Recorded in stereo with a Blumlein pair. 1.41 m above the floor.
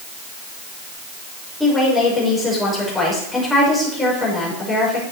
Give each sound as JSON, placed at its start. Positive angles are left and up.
{"t": 1.6, "sound": "a woman speaking", "azimuth_deg": 10, "distance_m": 5.0}